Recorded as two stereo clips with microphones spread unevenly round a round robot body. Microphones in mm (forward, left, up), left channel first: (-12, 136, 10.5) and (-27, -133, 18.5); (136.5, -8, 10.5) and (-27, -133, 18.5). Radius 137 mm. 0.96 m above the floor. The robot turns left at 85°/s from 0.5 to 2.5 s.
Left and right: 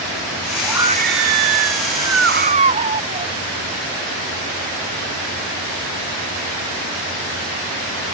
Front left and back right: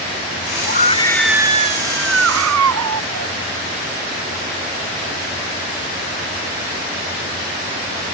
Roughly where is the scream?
Ahead.